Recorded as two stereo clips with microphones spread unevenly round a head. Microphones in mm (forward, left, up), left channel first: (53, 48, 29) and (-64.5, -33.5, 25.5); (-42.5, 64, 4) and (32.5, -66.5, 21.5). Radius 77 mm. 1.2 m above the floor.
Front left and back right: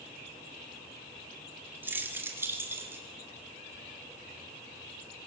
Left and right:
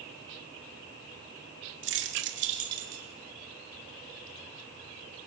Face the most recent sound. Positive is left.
turn(degrees=-70)